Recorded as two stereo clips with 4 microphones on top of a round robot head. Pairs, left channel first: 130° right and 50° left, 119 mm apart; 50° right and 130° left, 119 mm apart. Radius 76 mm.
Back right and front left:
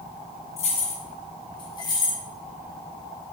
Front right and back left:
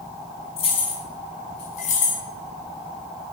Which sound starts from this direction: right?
Keys jangling, at 0.6 s.